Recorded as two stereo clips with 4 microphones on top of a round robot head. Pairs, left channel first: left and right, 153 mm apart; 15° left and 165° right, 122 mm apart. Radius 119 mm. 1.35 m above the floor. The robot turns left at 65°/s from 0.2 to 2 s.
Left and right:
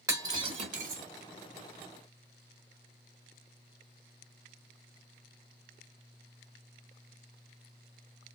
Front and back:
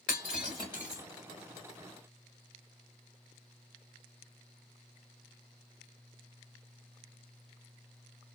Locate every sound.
0.1 s breaking glass: 20° right, 1.3 m; by 1.0 s 75° right, 1.3 m